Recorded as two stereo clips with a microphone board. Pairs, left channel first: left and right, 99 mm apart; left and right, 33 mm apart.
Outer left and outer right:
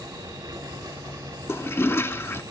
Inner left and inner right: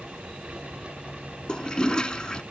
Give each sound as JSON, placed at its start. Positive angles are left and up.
{"t": 1.5, "sound": "a toilet flushing", "side_deg": 25, "distance_m": 0.6}